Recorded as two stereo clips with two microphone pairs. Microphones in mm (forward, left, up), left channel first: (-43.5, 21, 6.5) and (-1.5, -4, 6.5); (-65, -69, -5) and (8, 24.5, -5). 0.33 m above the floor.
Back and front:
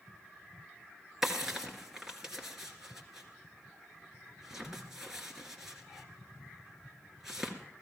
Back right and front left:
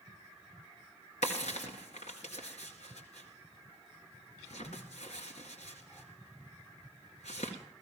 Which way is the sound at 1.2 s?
115° right.